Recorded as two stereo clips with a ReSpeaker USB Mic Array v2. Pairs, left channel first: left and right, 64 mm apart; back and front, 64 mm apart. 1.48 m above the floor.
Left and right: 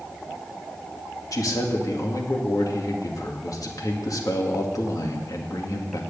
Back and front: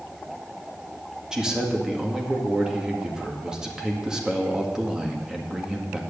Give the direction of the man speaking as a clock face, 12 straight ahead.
9 o'clock.